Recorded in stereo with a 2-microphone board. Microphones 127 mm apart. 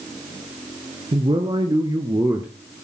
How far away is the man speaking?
About 1.8 m.